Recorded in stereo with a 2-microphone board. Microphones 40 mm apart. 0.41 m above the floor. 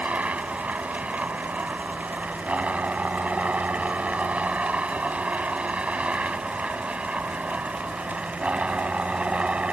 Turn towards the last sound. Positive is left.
turn(degrees=-30)  # may be behind; listen again after turning